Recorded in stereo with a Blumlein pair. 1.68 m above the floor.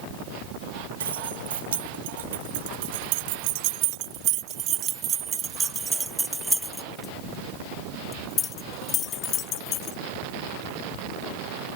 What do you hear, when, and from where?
1.0 s keys jangling: 70° right; by 10.0 s 35° left